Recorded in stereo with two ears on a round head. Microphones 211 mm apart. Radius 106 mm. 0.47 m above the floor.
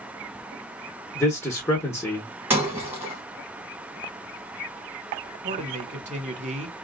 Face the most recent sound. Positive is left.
turn(degrees=-30)  # may be behind; listen again after turning